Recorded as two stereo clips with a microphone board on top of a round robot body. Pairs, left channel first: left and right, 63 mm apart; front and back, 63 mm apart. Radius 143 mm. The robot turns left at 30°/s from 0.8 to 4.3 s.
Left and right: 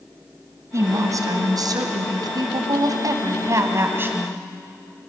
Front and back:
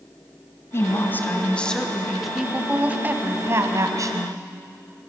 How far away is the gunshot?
No gunshot in this recording.